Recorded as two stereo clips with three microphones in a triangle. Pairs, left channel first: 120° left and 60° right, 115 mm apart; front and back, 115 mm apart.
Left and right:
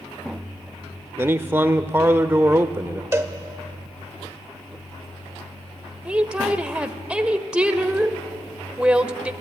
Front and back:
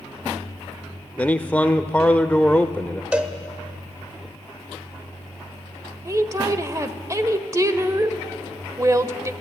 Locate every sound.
1.2 s a man speaking: 45° right, 0.8 m
3.1 s a cowbell: 110° right, 1.2 m
6.0 s a woman speaking: 135° right, 1.0 m